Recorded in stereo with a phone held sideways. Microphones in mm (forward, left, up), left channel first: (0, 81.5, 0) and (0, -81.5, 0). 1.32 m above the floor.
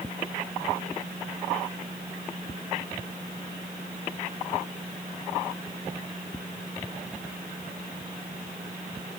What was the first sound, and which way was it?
Only background noise.